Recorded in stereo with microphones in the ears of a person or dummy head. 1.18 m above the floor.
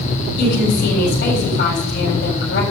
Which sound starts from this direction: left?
A woman speaking, at 0.4 s.